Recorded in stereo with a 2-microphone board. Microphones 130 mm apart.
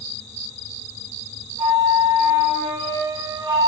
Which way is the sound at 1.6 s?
40° right (ahead or behind).